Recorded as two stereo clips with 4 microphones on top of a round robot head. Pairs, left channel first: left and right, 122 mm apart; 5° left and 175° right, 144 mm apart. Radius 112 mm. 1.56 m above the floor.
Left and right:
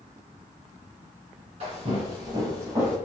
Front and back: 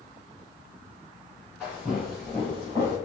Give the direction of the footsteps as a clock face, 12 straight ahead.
3 o'clock.